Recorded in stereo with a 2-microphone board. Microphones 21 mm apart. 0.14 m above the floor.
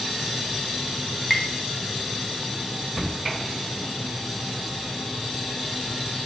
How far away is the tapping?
About 0.6 m.